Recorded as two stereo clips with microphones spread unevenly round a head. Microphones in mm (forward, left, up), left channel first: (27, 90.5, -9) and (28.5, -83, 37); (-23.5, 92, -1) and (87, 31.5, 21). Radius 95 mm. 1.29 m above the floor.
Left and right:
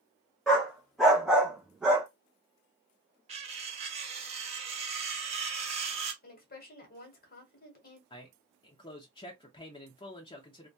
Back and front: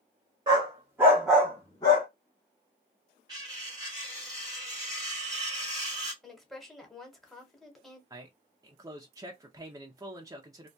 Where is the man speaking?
40° left, 0.6 m.